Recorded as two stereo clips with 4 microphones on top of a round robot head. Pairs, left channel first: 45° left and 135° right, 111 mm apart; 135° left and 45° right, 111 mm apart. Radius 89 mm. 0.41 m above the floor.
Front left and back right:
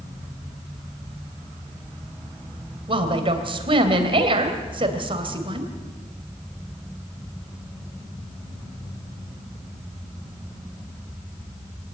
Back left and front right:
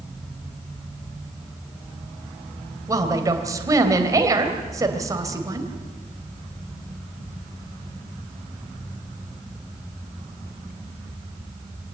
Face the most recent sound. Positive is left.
turn(degrees=-105)